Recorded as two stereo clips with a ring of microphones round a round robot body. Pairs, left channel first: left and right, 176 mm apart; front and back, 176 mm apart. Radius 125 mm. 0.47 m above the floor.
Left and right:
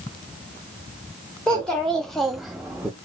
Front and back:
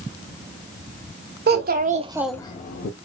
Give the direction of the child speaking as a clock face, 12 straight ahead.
6 o'clock.